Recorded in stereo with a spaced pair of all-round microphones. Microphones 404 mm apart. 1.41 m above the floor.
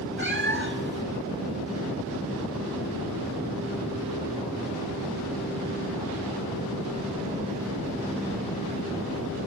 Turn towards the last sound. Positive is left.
turn(degrees=-30)  # may be behind; listen again after turning